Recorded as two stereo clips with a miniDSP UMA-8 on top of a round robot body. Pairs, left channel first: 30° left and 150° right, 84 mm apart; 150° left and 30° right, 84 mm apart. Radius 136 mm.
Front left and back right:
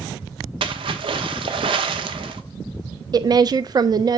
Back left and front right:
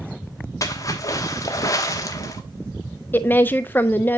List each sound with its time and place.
0.6 s a splash: 160° right, 1.1 m
3.1 s a woman speaking: 150° right, 0.5 m